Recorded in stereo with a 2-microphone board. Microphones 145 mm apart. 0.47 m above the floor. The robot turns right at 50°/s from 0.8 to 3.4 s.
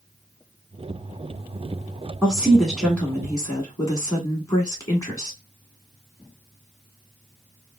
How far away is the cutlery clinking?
No cutlery clinking in this recording.